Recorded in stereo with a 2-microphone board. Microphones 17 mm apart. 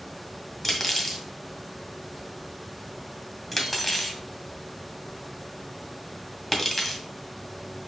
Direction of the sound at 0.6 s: 5° left (ahead or behind).